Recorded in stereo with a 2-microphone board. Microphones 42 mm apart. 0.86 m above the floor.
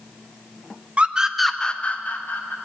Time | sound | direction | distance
1.0 | a scream | 30° right (ahead or behind) | 0.8 m